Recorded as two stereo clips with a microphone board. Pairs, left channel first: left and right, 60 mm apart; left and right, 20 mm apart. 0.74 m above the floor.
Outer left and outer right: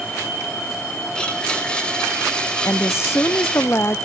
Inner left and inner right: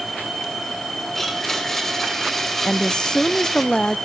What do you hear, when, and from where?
1.1 s a blender: 15° left (ahead or behind), 3 m
2.6 s a woman speaking: 45° left (ahead or behind), 0.5 m